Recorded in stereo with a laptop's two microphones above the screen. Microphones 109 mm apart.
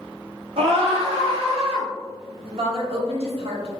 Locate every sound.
0.6 s a scream: 65° right (ahead or behind), 0.6 m
2.5 s a woman speaking: 65° right (ahead or behind), 0.9 m